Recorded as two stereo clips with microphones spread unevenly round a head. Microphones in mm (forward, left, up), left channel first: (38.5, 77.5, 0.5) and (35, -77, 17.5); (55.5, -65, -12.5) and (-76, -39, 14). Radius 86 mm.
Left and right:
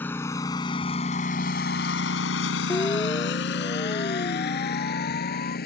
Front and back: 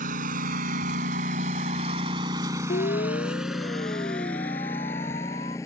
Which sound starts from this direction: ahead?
A siren, at 2.7 s.